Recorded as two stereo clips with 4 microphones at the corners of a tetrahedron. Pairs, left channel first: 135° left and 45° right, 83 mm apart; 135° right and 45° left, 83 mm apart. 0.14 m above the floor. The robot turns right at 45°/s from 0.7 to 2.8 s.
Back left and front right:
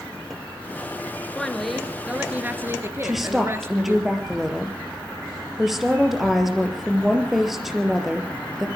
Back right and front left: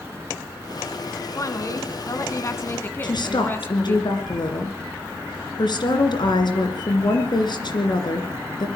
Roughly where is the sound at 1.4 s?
Behind right.